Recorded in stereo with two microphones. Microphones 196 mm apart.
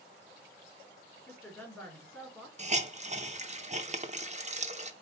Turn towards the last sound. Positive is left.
turn(degrees=-35)  # may be behind; listen again after turning